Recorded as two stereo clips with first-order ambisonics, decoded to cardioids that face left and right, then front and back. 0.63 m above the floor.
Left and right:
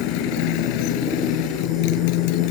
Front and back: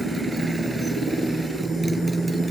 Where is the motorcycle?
100° left.